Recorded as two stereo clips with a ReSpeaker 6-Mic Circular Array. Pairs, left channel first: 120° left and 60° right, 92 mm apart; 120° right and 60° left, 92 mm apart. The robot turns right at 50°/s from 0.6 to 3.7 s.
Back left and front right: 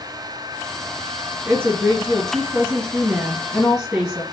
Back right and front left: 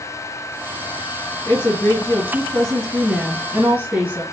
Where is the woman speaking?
100° right, 1.9 m; by 4.2 s 15° left, 1.9 m.